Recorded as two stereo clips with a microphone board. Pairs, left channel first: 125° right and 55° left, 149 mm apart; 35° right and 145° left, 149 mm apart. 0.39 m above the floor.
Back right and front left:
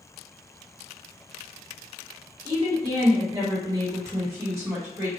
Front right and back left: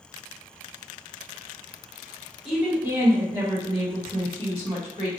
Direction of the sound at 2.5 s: 65° left.